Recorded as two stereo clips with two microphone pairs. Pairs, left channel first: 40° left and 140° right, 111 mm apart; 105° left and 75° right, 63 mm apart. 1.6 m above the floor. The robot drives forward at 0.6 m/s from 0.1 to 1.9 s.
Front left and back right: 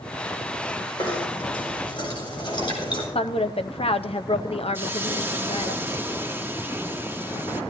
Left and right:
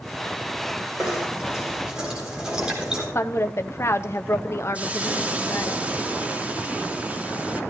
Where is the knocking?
Straight ahead, 4.5 m.